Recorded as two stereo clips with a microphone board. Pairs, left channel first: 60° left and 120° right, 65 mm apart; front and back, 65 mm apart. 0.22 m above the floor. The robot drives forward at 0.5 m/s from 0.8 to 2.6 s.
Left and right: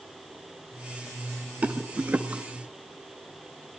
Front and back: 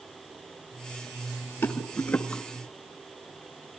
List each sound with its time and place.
1.6 s a rattle: 45° right, 1.2 m; by 2.4 s 65° right, 1.0 m